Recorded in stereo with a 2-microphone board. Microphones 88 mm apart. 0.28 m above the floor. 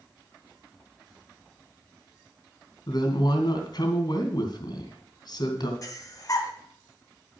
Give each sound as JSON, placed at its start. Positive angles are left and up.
{"t": 2.9, "sound": "a woman speaking", "side_deg": 60, "distance_m": 2.5}
{"t": 5.8, "sound": "breathing", "side_deg": 45, "distance_m": 1.8}